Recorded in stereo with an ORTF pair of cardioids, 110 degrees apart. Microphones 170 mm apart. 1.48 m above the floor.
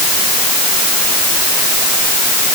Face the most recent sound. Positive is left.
No sound to turn to.